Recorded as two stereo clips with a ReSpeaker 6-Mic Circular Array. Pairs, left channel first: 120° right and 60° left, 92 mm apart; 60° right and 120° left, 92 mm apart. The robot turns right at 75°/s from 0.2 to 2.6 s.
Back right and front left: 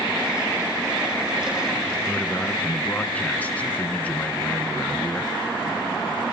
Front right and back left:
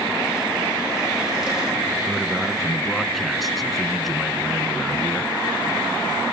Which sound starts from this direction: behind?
A man speaking, at 2.1 s.